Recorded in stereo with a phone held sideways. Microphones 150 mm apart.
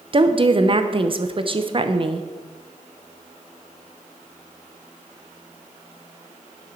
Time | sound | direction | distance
0.1 | a woman speaking | 35° right (ahead or behind) | 0.7 m